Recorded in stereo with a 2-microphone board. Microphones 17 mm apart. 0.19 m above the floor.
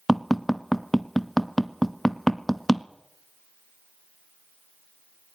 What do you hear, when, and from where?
0.1 s tapping: 10° left (ahead or behind), 0.9 m